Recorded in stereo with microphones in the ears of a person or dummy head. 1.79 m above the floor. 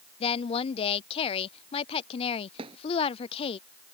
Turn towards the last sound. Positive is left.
turn(degrees=-30)  # may be behind; listen again after turning